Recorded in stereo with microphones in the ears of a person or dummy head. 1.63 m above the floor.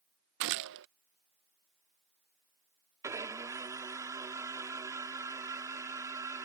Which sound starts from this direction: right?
A gunshot, at 0.4 s.